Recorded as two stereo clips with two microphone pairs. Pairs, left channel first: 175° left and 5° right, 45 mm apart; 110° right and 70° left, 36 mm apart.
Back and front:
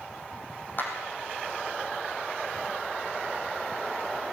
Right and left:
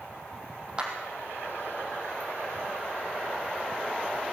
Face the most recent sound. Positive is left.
turn(degrees=135)